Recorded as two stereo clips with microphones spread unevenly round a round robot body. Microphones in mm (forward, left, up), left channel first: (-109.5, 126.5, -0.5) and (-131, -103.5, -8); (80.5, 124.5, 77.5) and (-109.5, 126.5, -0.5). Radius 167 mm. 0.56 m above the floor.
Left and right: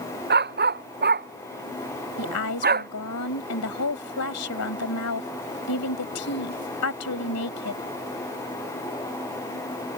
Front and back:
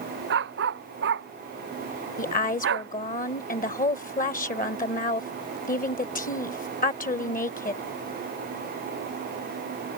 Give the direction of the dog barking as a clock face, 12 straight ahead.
5 o'clock.